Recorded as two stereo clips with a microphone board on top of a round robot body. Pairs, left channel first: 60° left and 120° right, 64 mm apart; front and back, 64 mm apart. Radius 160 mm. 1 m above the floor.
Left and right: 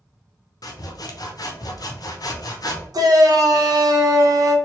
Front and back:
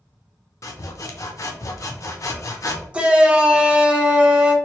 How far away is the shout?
About 1.1 m.